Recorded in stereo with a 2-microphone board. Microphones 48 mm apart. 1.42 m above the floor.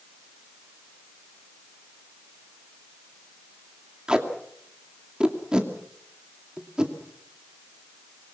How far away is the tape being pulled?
About 2.5 m.